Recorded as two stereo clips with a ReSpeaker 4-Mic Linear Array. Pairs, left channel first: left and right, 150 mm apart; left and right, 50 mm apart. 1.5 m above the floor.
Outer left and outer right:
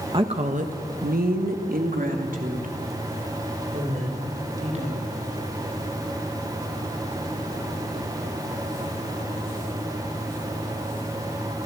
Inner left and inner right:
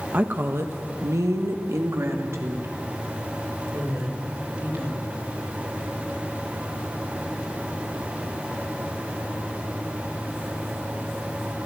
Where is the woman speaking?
35° right (ahead or behind), 1.5 m; by 5.2 s 50° right (ahead or behind), 6.5 m.